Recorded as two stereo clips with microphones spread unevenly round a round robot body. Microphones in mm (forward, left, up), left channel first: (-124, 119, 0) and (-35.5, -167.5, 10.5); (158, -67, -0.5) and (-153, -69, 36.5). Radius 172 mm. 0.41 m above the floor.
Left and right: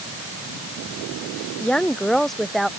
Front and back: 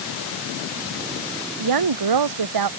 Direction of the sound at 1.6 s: 165° right.